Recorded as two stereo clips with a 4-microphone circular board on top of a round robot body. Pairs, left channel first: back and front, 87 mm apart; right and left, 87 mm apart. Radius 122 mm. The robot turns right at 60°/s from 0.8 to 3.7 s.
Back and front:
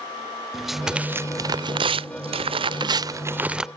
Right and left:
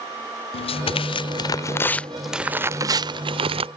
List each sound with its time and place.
0.5 s tearing paper: 85° right; by 3.7 s 85° left